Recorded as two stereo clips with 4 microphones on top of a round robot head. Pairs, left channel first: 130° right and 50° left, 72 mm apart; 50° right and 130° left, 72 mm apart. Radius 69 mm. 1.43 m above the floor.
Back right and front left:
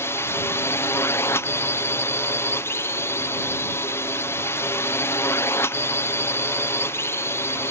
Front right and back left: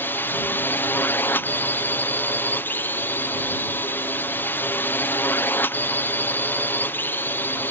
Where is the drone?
100° right.